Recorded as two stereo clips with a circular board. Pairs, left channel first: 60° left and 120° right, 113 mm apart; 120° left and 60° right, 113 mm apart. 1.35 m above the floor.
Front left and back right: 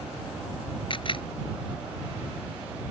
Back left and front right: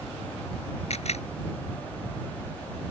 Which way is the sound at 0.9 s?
100° left.